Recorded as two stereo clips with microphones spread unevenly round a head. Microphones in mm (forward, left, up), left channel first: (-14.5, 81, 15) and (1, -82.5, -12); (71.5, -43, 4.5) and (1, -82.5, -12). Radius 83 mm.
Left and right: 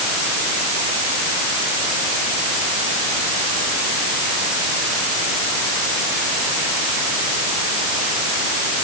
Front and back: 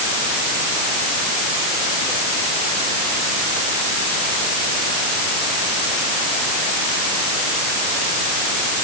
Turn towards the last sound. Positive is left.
No sound to turn to.